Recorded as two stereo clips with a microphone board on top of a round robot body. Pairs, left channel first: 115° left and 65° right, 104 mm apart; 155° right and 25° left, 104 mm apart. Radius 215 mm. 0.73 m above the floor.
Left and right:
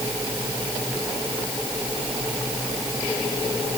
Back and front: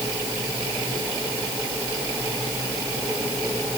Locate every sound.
Only background noise.